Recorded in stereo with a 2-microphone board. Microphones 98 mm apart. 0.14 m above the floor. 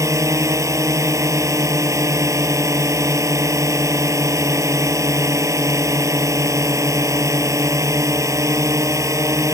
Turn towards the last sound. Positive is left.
turn(degrees=-35)  # may be behind; listen again after turning